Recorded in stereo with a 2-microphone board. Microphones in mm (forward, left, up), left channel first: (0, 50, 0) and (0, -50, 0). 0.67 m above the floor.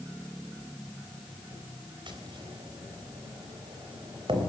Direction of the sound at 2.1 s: 55° right (ahead or behind).